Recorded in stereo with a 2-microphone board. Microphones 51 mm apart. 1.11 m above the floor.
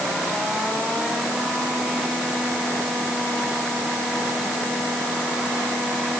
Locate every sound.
Only background noise.